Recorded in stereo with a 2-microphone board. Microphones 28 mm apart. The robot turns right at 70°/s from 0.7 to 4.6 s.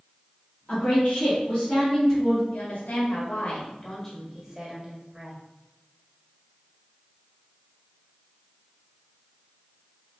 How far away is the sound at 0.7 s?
About 1.4 m.